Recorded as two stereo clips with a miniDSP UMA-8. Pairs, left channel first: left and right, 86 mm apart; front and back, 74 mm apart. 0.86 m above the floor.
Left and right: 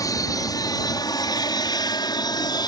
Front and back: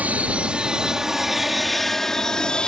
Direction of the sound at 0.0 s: 115° left.